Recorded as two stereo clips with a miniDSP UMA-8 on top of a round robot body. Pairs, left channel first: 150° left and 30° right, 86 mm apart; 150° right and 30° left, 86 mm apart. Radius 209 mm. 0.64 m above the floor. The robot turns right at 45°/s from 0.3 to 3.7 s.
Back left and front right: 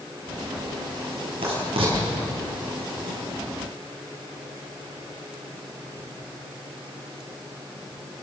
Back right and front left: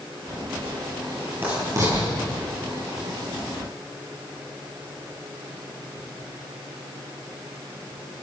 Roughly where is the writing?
Ahead right.